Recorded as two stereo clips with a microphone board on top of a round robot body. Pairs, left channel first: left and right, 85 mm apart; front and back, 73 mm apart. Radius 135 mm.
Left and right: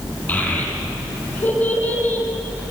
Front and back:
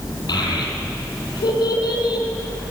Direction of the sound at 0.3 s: 20° left.